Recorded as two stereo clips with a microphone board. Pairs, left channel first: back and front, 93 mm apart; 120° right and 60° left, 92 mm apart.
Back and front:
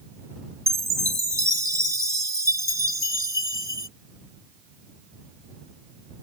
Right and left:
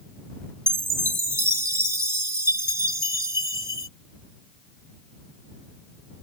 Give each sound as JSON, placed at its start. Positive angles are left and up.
{"t": 0.7, "sound": "a chime", "azimuth_deg": 20}